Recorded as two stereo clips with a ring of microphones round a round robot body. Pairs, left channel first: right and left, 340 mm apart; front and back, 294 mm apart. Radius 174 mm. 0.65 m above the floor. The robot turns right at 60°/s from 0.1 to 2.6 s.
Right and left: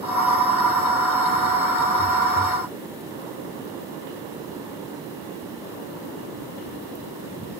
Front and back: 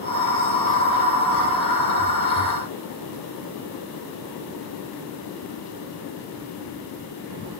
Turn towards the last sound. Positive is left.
No sound to turn to.